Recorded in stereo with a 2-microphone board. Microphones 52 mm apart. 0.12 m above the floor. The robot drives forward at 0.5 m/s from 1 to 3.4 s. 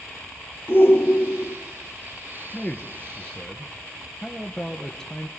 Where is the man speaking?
15° left (ahead or behind), 1.8 m; by 5.3 s 10° left (ahead or behind), 2 m.